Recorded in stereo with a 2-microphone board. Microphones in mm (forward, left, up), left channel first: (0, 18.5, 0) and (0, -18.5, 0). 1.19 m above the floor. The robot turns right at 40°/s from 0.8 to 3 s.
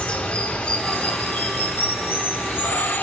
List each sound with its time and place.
0.0 s running water: 30° left, 3 m; by 3.0 s 120° left, 3 m